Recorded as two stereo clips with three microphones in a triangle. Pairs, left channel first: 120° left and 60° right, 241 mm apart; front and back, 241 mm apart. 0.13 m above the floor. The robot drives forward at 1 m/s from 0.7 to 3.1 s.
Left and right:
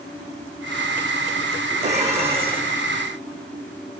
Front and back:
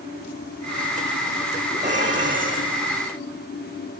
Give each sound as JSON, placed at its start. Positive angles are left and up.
{"t": 1.8, "sound": "dishes clattering", "azimuth_deg": -120, "distance_m": 5.5}